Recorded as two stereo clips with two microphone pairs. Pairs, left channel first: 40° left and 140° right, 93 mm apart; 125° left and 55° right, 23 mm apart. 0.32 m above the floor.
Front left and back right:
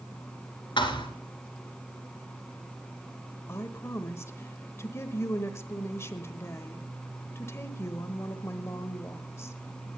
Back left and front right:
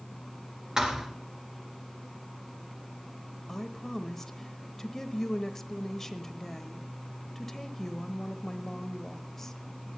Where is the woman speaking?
65° left, 0.9 m.